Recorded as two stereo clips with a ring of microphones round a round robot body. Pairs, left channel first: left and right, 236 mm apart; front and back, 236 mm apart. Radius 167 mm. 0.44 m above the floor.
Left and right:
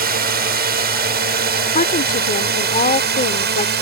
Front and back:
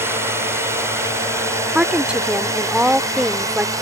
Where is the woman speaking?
100° left.